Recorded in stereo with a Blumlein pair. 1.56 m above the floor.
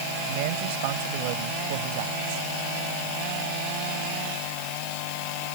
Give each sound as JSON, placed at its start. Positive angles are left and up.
{"t": 0.3, "sound": "a man speaking", "azimuth_deg": -50}